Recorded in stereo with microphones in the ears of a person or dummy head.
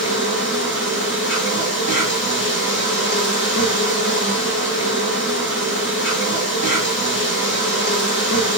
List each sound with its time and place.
0.0 s an insect: 50° left (ahead or behind), 1.2 m